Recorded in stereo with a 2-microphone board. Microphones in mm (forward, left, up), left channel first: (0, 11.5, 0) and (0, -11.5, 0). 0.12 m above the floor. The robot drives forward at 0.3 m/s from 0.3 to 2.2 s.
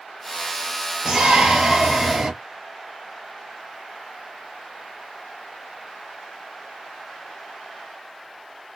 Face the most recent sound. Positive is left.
turn(degrees=-50)  # may be behind; listen again after turning